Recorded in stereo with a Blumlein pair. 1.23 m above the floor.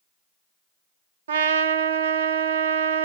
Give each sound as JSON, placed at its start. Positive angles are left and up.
{"t": 1.3, "sound": "a trumpet", "azimuth_deg": -60, "distance_m": 0.6}